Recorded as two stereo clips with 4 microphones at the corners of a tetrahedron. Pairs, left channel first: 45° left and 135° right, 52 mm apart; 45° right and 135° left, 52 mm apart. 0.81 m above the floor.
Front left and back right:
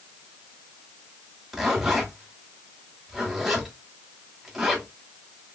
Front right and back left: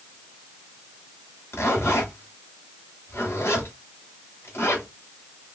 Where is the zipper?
50° right, 1.6 m.